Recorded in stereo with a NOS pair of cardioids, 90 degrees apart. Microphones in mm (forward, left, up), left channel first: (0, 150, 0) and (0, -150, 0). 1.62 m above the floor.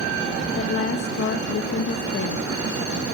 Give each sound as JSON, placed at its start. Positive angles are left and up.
{"t": 0.6, "sound": "a woman speaking", "azimuth_deg": 50, "distance_m": 1.9}